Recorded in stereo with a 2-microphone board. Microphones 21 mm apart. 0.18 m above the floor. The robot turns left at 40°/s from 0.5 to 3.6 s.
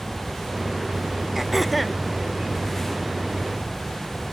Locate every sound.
1.4 s throat clearing: 20° right (ahead or behind); by 2.0 s 5° left (ahead or behind)